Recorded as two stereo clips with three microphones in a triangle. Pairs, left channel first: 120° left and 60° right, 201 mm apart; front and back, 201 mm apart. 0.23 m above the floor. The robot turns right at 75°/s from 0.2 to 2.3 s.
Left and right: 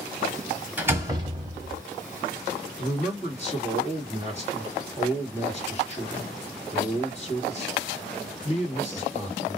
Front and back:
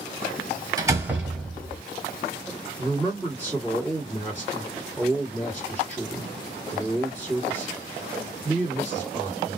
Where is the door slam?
130° right, 1.0 m; by 1.8 s 55° right, 1.0 m.